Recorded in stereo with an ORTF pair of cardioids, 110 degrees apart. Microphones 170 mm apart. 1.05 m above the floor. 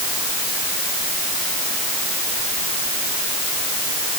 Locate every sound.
Only background noise.